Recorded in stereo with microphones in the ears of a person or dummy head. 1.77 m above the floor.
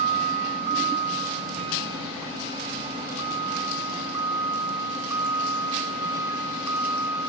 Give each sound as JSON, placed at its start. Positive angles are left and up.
{"t": 0.0, "sound": "a vehicle", "side_deg": -40}